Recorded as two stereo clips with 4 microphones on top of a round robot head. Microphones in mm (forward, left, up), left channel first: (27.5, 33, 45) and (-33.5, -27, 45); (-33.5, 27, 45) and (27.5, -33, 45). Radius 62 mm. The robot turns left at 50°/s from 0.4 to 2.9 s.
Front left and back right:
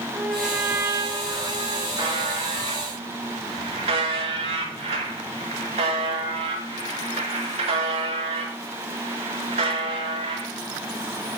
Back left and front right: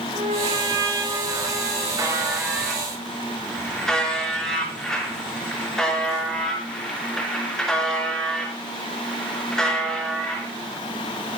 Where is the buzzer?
95° right, 4.5 m; by 10.5 s 140° right, 4.5 m.